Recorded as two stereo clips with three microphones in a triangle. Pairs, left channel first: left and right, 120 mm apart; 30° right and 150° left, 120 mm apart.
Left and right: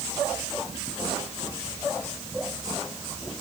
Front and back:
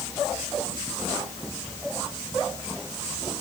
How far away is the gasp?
I don't hear a gasp.